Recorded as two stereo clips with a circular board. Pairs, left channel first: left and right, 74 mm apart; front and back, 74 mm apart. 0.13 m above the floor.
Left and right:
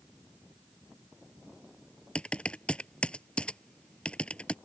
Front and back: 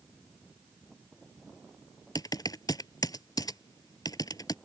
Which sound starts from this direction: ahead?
Typing on a keyboard, at 2.1 s.